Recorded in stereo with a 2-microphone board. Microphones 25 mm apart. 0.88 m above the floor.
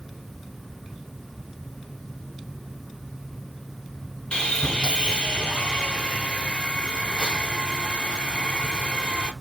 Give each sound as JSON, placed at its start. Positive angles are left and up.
{"t": 4.3, "sound": "sawing", "side_deg": 35, "distance_m": 0.8}